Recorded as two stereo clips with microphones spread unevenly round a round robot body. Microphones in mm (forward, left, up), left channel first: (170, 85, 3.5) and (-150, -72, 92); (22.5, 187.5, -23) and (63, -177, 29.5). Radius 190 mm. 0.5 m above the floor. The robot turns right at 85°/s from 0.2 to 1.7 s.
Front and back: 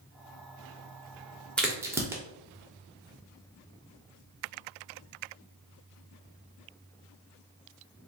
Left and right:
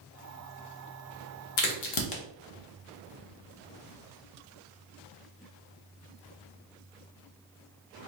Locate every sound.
1.6 s a crack: 105° left, 0.7 m; by 2.2 s 120° left, 0.7 m